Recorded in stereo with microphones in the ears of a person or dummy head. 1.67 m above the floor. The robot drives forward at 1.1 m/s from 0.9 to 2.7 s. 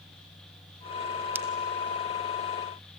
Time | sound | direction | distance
1.4 | a pop | 10° right (ahead or behind) | 0.5 m